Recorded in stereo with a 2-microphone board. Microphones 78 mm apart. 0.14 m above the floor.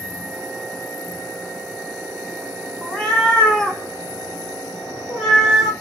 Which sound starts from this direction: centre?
A cat meowing, at 2.8 s.